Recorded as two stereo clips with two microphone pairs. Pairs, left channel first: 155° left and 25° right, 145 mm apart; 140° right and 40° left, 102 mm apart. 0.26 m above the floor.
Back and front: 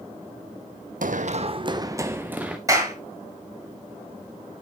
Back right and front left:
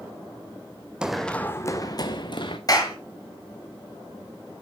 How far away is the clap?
About 4.5 m.